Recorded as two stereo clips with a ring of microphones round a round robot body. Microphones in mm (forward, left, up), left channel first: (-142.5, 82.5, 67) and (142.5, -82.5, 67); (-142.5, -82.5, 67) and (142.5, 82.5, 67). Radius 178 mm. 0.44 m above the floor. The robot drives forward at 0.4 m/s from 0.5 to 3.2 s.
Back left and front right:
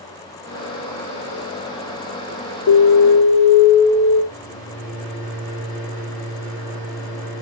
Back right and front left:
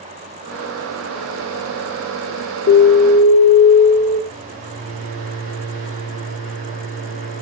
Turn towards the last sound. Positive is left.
turn(degrees=70)